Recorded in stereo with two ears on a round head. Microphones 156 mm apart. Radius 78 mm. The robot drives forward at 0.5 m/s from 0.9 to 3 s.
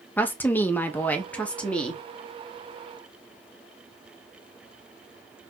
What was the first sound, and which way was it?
A woman speaking, 10° left (ahead or behind).